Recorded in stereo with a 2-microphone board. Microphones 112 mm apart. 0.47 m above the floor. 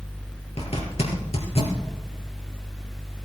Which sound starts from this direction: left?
A zipper, at 0.6 s.